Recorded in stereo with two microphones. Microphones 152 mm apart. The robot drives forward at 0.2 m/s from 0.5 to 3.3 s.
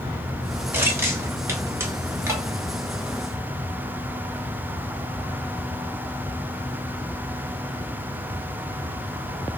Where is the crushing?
15° right (ahead or behind), 1.2 m.